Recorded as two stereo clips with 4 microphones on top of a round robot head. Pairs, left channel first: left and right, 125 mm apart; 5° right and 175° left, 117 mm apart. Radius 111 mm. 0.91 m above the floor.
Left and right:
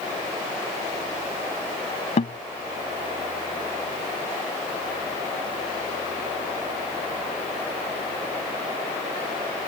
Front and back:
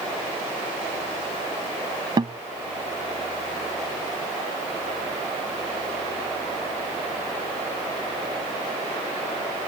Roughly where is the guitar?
Behind left.